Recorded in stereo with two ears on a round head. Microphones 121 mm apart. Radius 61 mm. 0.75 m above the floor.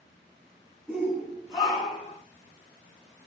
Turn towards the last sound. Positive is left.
turn(degrees=45)  # may be behind; listen again after turning